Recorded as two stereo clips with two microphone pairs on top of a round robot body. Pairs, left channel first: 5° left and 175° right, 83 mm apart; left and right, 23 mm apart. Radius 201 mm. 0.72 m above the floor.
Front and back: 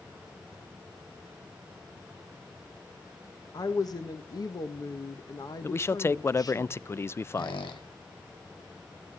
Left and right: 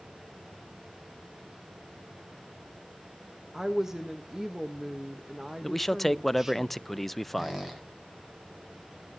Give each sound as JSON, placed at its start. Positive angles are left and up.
{"t": 3.5, "sound": "a woman speaking", "azimuth_deg": -10, "distance_m": 1.4}
{"t": 5.6, "sound": "a man speaking", "azimuth_deg": 35, "distance_m": 0.6}
{"t": 7.3, "sound": "a squeak", "azimuth_deg": -15, "distance_m": 1.9}